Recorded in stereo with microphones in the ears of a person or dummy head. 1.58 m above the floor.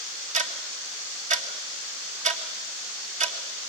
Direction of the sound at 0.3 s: 45° right (ahead or behind).